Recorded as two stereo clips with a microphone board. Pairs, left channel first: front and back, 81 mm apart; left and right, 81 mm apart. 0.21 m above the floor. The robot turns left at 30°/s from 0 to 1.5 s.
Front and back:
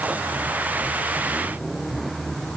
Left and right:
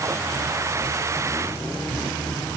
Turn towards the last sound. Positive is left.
No sound to turn to.